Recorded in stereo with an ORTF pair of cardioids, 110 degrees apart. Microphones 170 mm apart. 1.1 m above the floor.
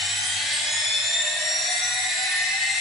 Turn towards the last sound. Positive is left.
turn(degrees=0)